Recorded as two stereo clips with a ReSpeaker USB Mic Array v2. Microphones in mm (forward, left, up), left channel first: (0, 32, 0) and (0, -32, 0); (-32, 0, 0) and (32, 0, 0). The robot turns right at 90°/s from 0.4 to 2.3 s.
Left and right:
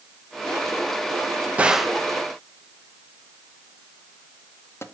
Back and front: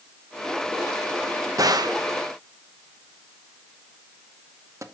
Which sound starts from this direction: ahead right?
A gunshot, at 1.6 s.